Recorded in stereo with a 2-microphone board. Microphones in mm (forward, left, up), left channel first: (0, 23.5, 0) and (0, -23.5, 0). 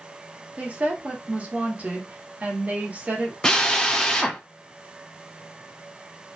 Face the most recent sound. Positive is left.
turn(degrees=15)  # may be behind; listen again after turning